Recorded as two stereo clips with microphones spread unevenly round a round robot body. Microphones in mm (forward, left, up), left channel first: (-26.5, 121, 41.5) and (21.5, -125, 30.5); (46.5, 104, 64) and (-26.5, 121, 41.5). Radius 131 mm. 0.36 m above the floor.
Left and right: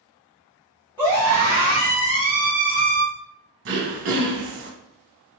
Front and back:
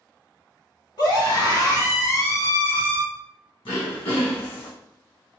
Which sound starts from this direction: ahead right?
Throat clearing, at 3.6 s.